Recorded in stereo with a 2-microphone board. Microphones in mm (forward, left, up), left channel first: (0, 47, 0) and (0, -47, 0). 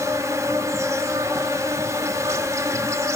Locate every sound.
0.0 s an insect: 30° right (ahead or behind), 0.7 m